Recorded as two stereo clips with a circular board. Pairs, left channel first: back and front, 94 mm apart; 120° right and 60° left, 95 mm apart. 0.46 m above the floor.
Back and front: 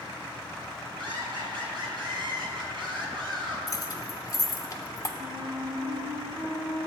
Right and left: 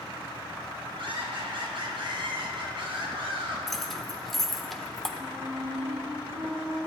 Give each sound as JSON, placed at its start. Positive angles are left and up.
{"t": 1.0, "sound": "laughter", "azimuth_deg": 35, "distance_m": 3.5}
{"t": 3.7, "sound": "keys jangling", "azimuth_deg": 155, "distance_m": 0.8}
{"t": 5.2, "sound": "a flute", "azimuth_deg": 35, "distance_m": 2.5}